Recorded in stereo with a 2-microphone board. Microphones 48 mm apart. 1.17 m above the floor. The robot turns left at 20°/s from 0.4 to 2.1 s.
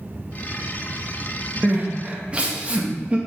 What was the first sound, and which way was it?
Crying, 35° right (ahead or behind).